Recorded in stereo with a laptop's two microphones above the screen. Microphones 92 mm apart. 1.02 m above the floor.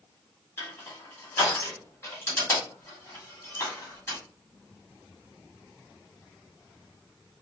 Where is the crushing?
30° left (ahead or behind), 2.0 m.